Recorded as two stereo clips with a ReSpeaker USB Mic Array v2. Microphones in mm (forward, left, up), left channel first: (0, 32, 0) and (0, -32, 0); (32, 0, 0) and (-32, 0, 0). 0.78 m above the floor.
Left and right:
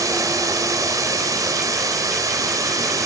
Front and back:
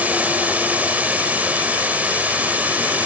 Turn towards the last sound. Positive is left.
turn(degrees=-115)